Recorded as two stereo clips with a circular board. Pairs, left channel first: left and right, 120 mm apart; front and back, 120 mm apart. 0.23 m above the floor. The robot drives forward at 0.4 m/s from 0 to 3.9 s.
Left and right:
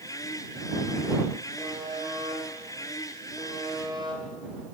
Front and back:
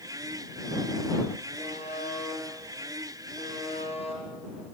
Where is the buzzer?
30° right, 6 m; by 4.2 s 35° right, 5 m.